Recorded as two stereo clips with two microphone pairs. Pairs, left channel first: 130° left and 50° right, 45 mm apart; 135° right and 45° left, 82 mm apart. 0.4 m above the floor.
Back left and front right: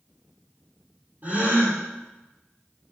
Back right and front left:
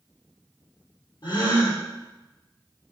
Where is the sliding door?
I don't hear a sliding door.